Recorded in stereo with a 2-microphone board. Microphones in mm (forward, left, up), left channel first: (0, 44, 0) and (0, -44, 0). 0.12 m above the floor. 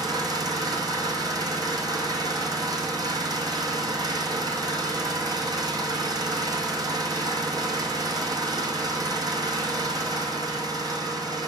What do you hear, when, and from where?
0.0 s an engine running: 50° right (ahead or behind), 1.6 m